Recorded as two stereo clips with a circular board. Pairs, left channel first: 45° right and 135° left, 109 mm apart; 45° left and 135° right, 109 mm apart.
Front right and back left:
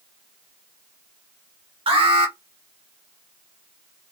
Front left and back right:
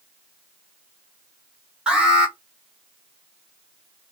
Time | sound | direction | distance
1.9 | an alarm | 145° left | 1.2 m